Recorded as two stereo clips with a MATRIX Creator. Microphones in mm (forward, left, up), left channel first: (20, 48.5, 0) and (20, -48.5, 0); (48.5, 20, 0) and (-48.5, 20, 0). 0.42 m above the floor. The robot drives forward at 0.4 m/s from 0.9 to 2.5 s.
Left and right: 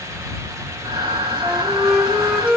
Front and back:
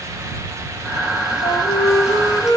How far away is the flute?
About 3 m.